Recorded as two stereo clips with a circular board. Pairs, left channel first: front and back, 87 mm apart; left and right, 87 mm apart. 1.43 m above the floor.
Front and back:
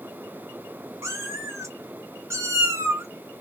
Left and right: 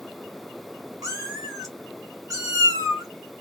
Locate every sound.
1.0 s a cat meowing: 130° right, 1.6 m